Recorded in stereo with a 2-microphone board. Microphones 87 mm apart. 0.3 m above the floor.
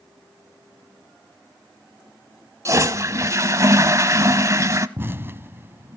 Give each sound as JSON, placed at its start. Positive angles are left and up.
{"t": 2.6, "sound": "a toilet flushing", "side_deg": -35, "distance_m": 0.8}
{"t": 5.0, "sound": "an explosion", "side_deg": -25, "distance_m": 0.7}